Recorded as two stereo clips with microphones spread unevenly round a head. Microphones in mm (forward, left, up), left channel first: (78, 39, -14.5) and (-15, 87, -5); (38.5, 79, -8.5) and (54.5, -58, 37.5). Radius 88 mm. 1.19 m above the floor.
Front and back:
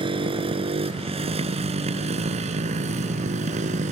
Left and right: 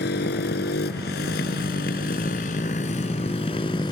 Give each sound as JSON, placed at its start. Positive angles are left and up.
{"t": 0.0, "sound": "a motorcycle", "azimuth_deg": 120}